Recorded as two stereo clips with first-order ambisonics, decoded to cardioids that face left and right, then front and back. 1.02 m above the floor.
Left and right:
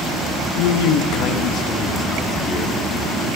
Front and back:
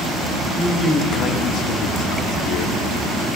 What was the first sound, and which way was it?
A man speaking, 95° left.